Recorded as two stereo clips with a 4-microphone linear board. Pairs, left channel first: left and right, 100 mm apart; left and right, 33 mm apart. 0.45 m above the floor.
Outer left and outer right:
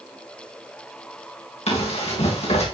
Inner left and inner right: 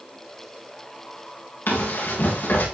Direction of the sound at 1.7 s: 85° left.